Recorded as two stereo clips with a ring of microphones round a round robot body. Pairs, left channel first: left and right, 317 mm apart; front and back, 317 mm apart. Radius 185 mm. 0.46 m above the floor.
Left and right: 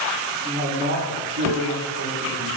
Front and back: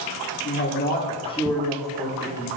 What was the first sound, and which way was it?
A man speaking, 35° right.